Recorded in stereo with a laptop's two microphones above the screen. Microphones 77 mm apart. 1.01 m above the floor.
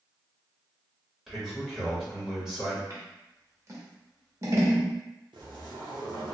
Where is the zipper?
75° right (ahead or behind), 0.7 m.